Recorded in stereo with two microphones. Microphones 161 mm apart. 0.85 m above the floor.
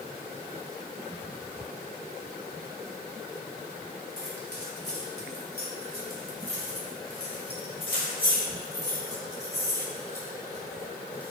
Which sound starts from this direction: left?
Keys jangling, at 4.2 s.